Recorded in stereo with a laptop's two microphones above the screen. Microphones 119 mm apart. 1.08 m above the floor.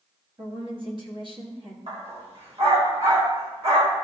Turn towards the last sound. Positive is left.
turn(degrees=-65)  # may be behind; listen again after turning